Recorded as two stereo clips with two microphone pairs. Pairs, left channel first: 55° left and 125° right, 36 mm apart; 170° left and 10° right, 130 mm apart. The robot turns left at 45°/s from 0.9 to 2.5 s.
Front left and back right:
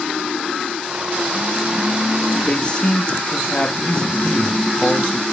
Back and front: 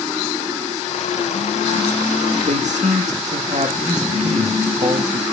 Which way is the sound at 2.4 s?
Straight ahead.